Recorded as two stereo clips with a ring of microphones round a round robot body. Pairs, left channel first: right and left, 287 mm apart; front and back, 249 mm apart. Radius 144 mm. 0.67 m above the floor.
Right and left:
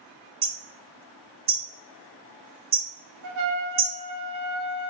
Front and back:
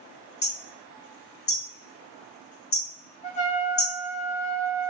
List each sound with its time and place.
0.4 s hammering: 30° left, 1.9 m
3.2 s a trumpet: 60° left, 0.9 m